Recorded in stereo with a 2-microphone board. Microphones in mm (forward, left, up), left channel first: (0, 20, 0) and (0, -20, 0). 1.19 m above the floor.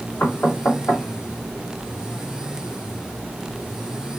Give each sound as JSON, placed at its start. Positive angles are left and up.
{"t": 0.2, "sound": "knocking", "side_deg": 80, "distance_m": 1.9}